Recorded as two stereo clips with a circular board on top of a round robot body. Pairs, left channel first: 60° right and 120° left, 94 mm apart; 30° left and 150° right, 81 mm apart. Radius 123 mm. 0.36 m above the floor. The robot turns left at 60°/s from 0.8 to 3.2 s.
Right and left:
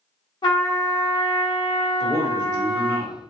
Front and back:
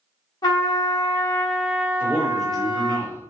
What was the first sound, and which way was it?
A trumpet, 10° right.